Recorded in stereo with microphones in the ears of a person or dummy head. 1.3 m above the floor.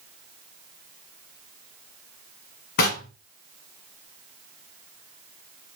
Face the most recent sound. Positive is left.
turn(degrees=45)  # may be behind; listen again after turning